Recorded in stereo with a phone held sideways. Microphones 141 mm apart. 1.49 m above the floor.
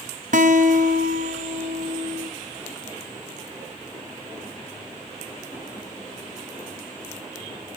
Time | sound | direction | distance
0.3 | a guitar | 65° right (ahead or behind) | 0.7 m